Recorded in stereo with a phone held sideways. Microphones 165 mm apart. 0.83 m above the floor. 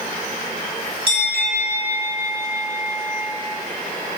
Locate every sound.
1.1 s a bell: 40° right (ahead or behind), 1.9 m